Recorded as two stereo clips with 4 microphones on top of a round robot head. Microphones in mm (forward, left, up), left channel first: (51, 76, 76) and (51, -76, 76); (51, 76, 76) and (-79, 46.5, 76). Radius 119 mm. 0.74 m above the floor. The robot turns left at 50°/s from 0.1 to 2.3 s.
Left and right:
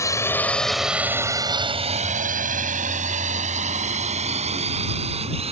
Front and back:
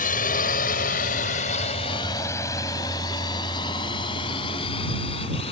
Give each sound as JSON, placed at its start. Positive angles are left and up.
{"t": 0.0, "sound": "a drone", "azimuth_deg": 20}